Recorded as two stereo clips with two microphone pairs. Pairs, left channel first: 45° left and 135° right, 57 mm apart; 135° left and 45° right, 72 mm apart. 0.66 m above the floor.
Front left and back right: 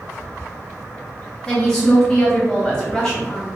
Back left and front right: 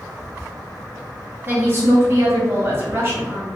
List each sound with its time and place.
1.5 s a woman speaking: 15° right, 0.7 m